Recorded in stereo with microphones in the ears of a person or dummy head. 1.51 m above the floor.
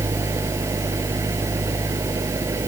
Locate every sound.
0.0 s an engine running: 15° right (ahead or behind)